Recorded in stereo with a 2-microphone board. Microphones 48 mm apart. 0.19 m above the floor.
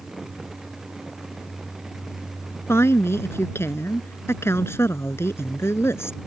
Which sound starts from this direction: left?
A woman speaking, at 2.7 s.